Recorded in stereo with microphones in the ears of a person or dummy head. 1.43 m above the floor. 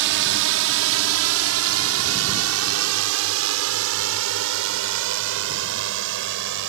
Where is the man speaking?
I don't hear a man speaking.